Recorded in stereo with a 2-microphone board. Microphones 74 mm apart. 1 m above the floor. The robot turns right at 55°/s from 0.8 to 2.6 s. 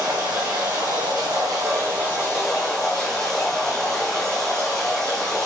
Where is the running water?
95° right, 4 m; by 5.5 s 5° left, 4 m.